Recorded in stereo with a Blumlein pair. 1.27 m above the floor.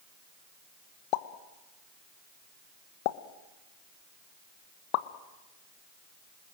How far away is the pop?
About 1.1 m.